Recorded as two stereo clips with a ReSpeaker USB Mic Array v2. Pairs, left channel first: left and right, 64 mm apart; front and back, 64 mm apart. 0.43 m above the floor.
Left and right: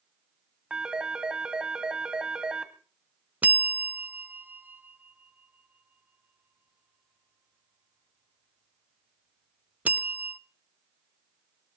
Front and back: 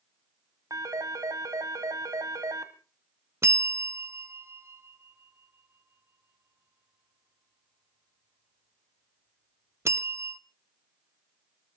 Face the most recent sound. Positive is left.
turn(degrees=-150)